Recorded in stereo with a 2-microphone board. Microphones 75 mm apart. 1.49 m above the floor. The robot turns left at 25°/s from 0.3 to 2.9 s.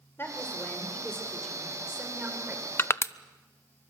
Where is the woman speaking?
30° left, 5 m; by 2.7 s 30° right, 5 m.